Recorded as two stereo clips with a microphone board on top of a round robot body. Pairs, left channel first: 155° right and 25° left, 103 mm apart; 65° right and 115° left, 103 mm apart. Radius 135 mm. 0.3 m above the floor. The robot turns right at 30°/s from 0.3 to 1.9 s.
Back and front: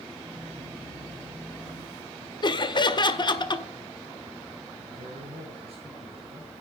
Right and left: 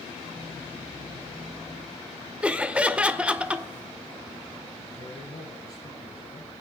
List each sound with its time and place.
2.4 s laughter: 170° right, 1.8 m
4.9 s a man speaking: 10° right, 9 m